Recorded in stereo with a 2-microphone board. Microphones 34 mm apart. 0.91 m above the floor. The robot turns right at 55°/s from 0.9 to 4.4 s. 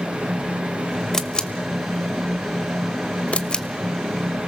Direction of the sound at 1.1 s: 15° left (ahead or behind).